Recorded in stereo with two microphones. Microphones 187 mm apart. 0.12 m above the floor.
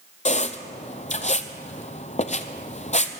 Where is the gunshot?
No gunshot in this recording.